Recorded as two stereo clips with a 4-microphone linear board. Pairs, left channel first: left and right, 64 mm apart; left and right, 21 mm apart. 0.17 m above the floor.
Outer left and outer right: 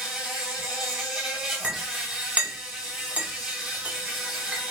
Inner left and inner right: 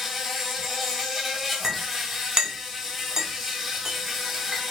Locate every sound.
0.0 s an insect: 10° right (ahead or behind), 1.9 m
1.6 s a clink: 20° right (ahead or behind), 1.2 m